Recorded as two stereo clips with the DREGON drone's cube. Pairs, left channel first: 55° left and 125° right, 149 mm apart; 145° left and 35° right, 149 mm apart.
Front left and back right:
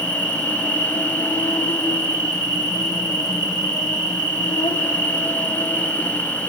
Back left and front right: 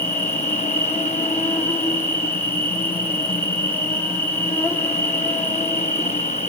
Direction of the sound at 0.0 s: 80° left.